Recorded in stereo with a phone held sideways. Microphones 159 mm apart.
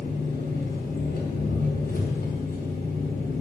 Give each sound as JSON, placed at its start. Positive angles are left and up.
{"t": 0.0, "sound": "an engine running", "side_deg": 85, "distance_m": 4.5}